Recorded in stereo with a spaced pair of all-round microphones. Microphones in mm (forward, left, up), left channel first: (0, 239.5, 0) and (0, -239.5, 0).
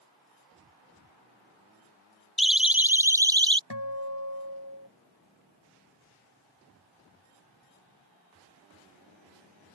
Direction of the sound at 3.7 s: 55° left (ahead or behind).